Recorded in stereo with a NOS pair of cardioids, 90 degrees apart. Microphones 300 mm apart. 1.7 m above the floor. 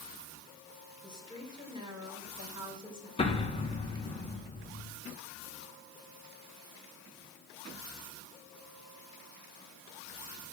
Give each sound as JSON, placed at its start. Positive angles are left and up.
{"t": 1.0, "sound": "a woman speaking", "azimuth_deg": -15, "distance_m": 7.0}
{"t": 3.2, "sound": "an explosion", "azimuth_deg": 20, "distance_m": 2.0}